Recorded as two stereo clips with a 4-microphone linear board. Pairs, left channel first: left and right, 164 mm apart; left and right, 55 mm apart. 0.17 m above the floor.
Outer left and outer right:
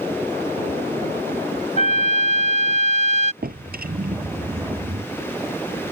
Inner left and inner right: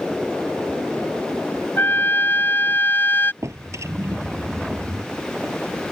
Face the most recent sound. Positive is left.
turn(degrees=-70)  # may be behind; listen again after turning